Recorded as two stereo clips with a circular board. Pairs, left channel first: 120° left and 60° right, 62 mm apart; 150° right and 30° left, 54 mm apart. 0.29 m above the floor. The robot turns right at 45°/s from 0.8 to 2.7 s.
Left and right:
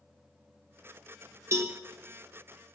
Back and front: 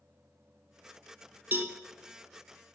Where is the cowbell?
20° right, 1.0 m; by 1.8 s 10° right, 1.0 m.